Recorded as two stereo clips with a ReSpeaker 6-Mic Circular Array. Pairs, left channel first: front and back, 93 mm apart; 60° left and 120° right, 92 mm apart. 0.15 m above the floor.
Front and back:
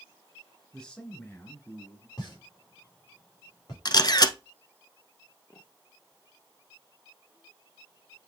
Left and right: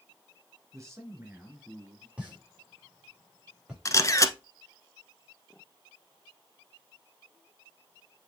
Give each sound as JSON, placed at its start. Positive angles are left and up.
{"t": 0.7, "sound": "a man speaking", "azimuth_deg": -80, "distance_m": 2.5}
{"t": 2.2, "sound": "a pop", "azimuth_deg": -40, "distance_m": 5.0}
{"t": 3.9, "sound": "a camera shutter", "azimuth_deg": 20, "distance_m": 0.8}